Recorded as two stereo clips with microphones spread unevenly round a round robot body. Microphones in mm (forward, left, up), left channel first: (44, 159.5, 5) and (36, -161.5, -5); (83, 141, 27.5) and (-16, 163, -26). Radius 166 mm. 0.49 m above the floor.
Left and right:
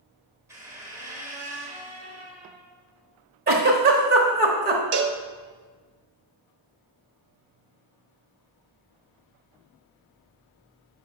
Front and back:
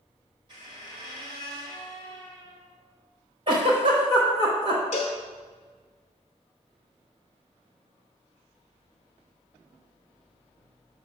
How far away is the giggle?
About 0.9 m.